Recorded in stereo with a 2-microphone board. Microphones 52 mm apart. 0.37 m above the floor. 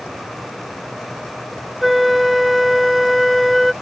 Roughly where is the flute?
Centre.